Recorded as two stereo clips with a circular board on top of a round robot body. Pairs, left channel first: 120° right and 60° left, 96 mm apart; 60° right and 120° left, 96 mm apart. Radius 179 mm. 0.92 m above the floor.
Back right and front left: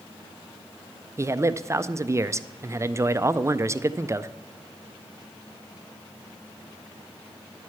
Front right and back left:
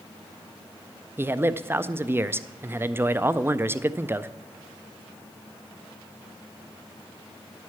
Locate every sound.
1.2 s a man speaking: 80° left, 0.6 m